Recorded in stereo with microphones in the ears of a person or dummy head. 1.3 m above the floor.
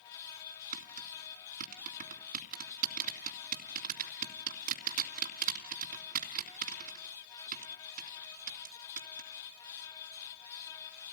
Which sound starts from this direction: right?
Tapping, at 0.7 s.